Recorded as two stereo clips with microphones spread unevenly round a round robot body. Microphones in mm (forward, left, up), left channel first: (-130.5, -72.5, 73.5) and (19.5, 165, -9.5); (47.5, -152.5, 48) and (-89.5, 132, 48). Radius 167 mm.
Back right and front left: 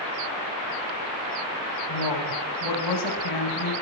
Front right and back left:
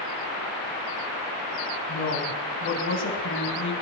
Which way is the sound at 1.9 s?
115° right.